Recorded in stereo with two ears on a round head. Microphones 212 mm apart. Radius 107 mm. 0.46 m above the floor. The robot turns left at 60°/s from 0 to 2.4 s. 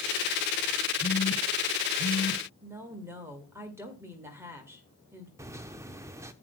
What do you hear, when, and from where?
1.0 s a phone buzzing: 30° left (ahead or behind), 0.9 m; by 2.4 s 65° left (ahead or behind), 0.9 m
2.6 s a woman speaking: 10° right (ahead or behind), 1.8 m
5.4 s a microwave: 10° right (ahead or behind), 0.5 m